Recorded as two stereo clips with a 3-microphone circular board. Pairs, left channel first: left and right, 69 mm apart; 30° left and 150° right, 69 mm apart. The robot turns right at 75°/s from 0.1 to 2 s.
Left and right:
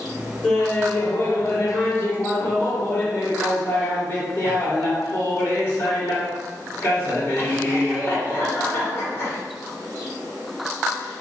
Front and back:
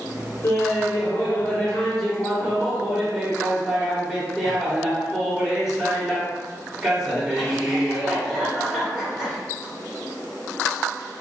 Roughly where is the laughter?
Ahead.